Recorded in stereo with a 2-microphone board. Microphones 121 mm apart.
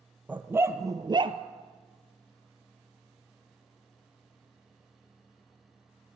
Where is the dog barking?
10° right (ahead or behind), 1.7 m; by 1.4 s 50° right (ahead or behind), 1.3 m.